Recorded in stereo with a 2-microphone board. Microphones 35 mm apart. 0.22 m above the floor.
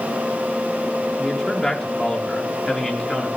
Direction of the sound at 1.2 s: 15° left (ahead or behind).